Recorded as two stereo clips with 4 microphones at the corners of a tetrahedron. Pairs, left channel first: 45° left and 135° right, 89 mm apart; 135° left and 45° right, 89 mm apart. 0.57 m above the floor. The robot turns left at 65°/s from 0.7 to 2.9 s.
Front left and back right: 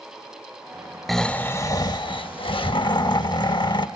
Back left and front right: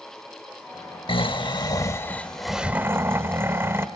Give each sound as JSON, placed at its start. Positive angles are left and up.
{"t": 1.1, "sound": "snoring", "azimuth_deg": 135, "distance_m": 0.8}